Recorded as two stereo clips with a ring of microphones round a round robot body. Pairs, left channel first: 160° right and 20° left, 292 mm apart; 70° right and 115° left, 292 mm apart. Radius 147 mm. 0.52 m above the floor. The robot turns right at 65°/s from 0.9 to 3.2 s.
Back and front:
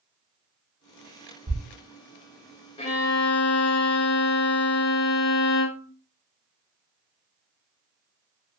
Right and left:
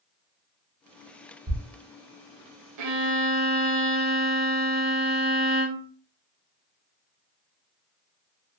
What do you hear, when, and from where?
1.5 s a thud: 75° left, 1.5 m; by 1.6 s 80° left, 1.5 m
2.8 s a violin: 135° left, 0.6 m; by 5.9 s 160° left, 0.6 m